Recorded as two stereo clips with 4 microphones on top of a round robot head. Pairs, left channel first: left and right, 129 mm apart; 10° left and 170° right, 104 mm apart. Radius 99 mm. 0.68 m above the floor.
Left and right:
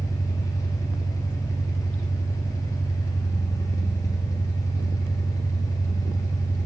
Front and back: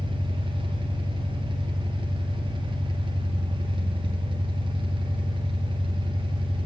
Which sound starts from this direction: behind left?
An engine running, at 0.0 s.